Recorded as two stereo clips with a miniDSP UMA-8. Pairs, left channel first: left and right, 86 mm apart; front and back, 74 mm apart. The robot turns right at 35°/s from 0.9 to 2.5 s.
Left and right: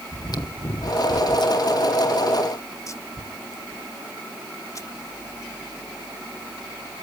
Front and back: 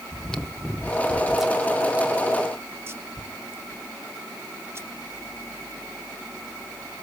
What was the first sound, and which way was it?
Chewing, 75° left.